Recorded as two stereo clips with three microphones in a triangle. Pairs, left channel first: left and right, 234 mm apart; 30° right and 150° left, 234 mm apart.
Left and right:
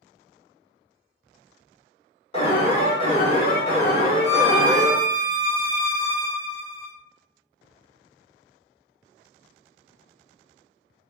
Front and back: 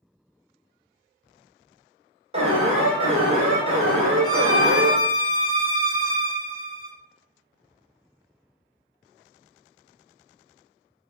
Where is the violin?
150° right, 1.1 m.